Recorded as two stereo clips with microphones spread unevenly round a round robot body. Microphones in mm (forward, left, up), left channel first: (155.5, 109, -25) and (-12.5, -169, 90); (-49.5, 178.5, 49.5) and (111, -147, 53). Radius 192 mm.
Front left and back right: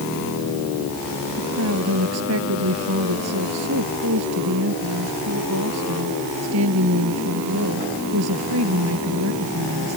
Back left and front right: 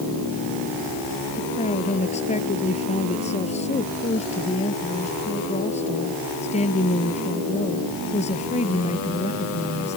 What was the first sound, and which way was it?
A woman speaking, 170° right.